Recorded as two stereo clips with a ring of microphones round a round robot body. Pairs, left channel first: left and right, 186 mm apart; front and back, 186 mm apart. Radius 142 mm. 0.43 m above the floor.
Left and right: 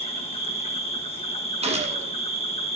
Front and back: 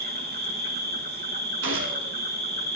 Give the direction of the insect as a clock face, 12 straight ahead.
7 o'clock.